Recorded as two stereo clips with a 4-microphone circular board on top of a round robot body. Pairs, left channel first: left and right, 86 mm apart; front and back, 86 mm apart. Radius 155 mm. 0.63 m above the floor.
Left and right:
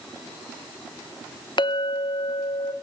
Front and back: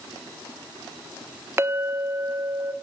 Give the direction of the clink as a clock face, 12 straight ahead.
8 o'clock.